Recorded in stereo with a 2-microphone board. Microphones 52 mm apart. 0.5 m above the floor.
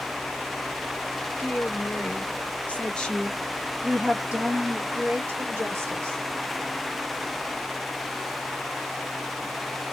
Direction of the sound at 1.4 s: 45° left (ahead or behind).